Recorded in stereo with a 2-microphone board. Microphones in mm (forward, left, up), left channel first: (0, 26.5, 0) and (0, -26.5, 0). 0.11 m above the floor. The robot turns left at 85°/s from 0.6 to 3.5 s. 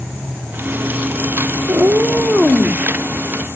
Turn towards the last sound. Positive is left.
turn(degrees=75)